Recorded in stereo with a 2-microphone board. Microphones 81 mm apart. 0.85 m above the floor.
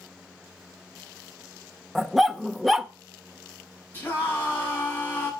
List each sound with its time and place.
1.9 s a dog barking: centre (ahead or behind), 0.9 m
3.9 s a scream: 30° left (ahead or behind), 8.5 m